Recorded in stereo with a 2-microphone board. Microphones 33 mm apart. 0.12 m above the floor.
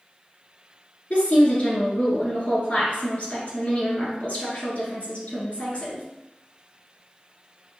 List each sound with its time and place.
1.1 s a woman speaking: 45° left (ahead or behind), 1.4 m